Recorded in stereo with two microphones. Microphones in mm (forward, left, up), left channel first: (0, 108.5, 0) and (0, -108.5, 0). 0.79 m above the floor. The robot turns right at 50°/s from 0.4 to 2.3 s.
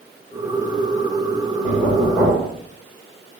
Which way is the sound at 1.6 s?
140° left.